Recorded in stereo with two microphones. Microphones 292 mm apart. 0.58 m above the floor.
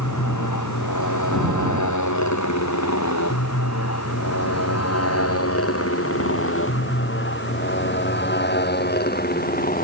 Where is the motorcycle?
85° left; by 9.8 s 30° left (ahead or behind).